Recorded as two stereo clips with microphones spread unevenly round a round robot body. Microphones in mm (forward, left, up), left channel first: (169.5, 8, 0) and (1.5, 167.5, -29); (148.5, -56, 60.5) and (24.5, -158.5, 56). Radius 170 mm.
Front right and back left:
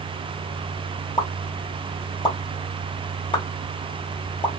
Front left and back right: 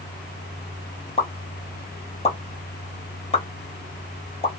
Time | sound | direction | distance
1.2 | a pop | 25° left | 1.1 m